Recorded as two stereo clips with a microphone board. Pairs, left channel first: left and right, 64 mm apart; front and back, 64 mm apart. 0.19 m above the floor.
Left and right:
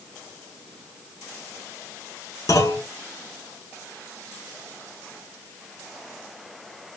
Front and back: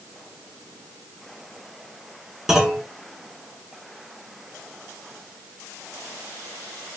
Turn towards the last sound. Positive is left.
turn(degrees=100)